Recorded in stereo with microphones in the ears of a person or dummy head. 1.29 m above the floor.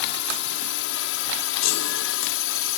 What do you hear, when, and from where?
0.0 s a drone: 65° left (ahead or behind); by 2.8 s 70° left (ahead or behind)
1.6 s a chime: 75° left (ahead or behind)